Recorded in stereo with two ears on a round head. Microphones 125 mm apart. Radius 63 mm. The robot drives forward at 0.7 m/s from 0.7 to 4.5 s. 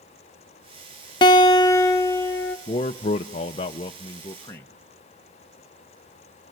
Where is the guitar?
35° left (ahead or behind), 0.7 m; by 2.6 s 15° left (ahead or behind), 1.4 m.